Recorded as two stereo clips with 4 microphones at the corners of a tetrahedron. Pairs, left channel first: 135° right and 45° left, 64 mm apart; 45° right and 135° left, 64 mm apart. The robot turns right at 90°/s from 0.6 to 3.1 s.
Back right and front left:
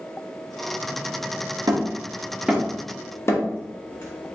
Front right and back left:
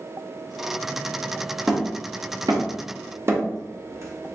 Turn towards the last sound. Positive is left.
turn(degrees=175)